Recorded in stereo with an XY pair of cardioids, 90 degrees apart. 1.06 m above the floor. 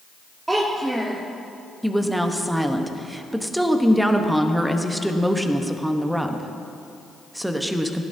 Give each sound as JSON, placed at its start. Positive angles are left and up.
{"t": 0.5, "sound": "a child speaking", "azimuth_deg": -15, "distance_m": 1.3}
{"t": 1.8, "sound": "a woman speaking", "azimuth_deg": -10, "distance_m": 1.0}